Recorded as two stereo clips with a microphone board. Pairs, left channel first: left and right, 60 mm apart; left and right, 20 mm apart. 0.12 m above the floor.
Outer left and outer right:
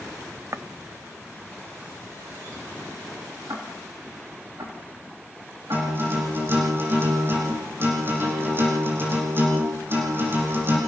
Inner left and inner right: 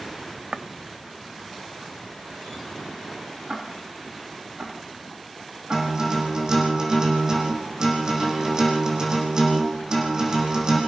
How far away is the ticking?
About 6 m.